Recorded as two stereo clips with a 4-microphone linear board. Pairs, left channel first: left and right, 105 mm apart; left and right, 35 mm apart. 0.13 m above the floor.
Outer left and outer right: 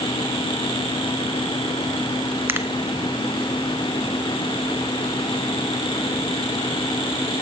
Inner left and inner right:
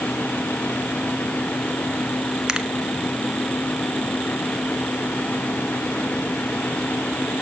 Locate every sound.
2.5 s a finger snap: 20° right (ahead or behind), 0.9 m